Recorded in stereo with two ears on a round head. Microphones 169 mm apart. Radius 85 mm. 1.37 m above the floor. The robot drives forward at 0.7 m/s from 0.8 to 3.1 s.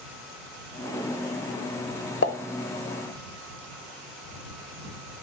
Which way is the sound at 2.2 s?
70° left (ahead or behind).